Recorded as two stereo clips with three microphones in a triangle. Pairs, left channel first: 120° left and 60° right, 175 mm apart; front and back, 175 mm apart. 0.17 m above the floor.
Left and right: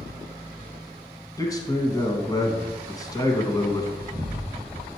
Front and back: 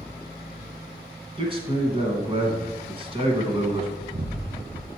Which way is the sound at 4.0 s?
140° right.